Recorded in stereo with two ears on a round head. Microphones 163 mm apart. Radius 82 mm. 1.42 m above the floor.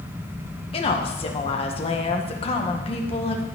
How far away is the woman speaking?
About 1.6 m.